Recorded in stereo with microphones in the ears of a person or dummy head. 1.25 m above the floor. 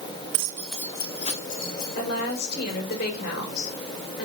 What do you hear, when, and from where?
0.3 s keys jangling: 35° right (ahead or behind), 0.8 m; by 3.0 s 50° left (ahead or behind), 3.5 m
1.9 s a woman speaking: 55° left (ahead or behind), 5 m